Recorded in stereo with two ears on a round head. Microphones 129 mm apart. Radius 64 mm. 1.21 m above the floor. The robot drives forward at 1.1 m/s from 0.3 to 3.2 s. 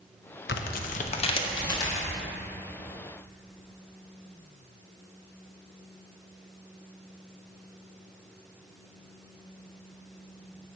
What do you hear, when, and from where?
0.5 s tearing paper: 80° left, 0.7 m; by 2.0 s 25° left (ahead or behind), 1.8 m